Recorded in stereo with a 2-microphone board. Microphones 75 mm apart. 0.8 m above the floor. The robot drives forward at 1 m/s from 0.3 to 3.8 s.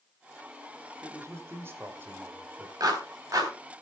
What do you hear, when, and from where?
1.0 s a man speaking: 40° right (ahead or behind), 2 m; by 2.7 s 25° right (ahead or behind), 3.5 m
2.8 s a clap: 60° right (ahead or behind), 4 m; by 3.5 s 50° right (ahead or behind), 4.5 m